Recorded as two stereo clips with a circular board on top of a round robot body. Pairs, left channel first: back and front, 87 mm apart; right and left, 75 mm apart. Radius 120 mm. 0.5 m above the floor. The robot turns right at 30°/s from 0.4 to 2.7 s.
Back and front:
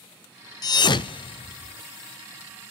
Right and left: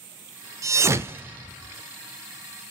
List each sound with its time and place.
0.6 s a thud: 135° left, 0.6 m; by 1.8 s 170° left, 0.6 m